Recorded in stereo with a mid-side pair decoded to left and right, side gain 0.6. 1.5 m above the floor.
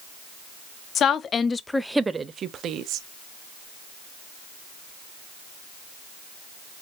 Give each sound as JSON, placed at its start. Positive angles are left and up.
{"t": 0.9, "sound": "a woman speaking", "azimuth_deg": 50, "distance_m": 0.8}